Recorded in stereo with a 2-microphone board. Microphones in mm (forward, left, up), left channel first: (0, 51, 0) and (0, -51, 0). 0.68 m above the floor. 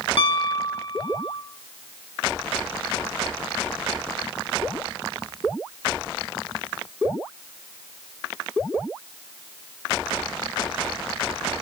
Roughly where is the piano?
Left.